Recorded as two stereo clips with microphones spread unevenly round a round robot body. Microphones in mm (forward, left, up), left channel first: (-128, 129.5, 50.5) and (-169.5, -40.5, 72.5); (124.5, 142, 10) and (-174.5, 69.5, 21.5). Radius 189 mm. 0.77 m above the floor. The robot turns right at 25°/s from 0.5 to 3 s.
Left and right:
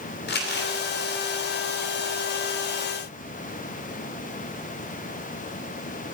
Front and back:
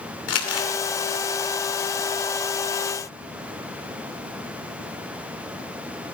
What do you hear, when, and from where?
0.3 s crumpling: 50° left, 2.5 m; by 0.7 s 55° left, 2.5 m